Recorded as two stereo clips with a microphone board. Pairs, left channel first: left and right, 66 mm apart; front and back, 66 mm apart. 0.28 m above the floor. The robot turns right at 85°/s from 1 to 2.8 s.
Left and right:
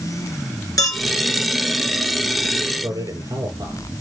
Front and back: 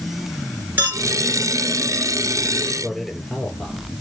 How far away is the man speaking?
About 5.5 m.